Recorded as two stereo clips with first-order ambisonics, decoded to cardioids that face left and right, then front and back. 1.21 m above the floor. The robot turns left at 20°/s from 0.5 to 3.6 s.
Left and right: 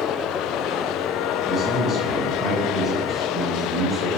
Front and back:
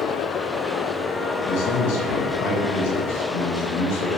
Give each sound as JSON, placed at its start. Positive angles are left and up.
{"t": 1.4, "sound": "a man speaking", "azimuth_deg": 35, "distance_m": 1.1}